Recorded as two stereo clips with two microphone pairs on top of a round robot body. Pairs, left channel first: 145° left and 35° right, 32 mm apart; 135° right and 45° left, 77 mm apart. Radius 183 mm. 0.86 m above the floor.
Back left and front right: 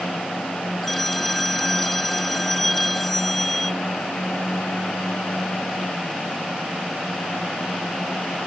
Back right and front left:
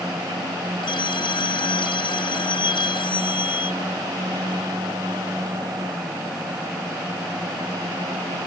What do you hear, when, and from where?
0.8 s a phone ringing: 135° right